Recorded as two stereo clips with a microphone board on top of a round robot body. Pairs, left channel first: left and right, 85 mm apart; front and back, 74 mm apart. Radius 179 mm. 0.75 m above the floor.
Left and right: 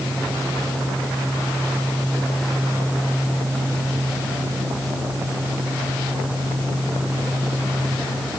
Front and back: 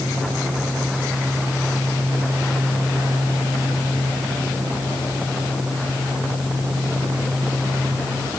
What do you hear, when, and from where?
Only background noise.